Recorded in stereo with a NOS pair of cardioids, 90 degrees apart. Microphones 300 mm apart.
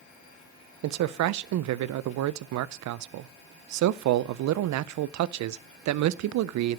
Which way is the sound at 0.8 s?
65° right.